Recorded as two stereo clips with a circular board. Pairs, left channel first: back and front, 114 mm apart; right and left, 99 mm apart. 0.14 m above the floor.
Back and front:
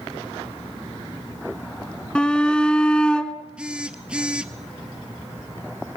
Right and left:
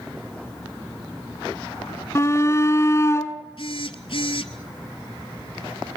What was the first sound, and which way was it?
A shout, 105° right.